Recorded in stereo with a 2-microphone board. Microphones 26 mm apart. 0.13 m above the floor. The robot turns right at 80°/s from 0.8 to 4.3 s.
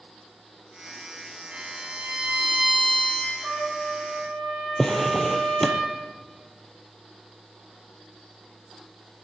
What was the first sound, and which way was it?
A violin, 110° right.